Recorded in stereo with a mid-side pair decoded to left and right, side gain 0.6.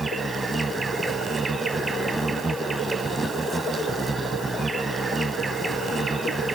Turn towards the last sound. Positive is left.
turn(degrees=-15)